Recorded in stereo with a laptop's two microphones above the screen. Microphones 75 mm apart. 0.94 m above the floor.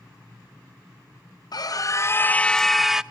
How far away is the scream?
About 0.8 m.